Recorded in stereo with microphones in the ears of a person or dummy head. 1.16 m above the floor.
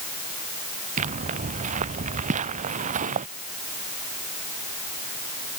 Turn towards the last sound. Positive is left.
turn(degrees=-45)  # may be behind; listen again after turning